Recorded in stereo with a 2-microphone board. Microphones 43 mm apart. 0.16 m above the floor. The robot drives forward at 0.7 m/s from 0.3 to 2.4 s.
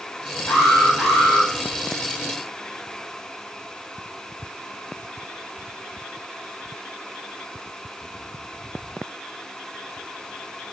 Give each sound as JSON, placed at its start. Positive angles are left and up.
{"t": 0.5, "sound": "an alarm", "side_deg": 70, "distance_m": 3.5}